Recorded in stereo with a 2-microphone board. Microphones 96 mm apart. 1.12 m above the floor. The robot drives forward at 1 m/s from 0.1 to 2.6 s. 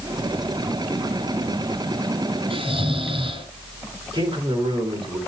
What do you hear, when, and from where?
2.5 s snoring: 70° right (ahead or behind), 2.5 m
4.1 s a man speaking: 50° right (ahead or behind), 3.5 m